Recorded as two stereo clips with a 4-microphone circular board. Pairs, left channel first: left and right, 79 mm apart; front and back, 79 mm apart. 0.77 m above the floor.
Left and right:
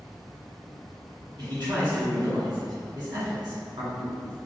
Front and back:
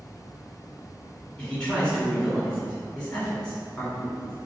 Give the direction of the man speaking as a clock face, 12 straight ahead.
3 o'clock.